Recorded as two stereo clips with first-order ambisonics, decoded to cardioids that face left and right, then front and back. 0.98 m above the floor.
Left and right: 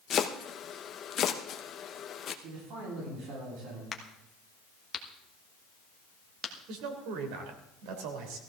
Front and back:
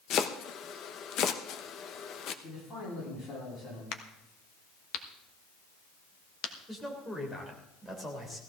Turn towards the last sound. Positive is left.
turn(degrees=-85)